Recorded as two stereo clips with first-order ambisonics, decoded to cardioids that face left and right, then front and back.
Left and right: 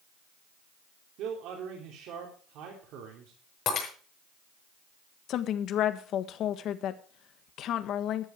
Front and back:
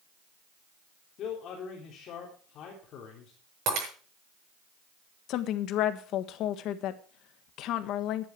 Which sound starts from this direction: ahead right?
A man speaking, at 1.2 s.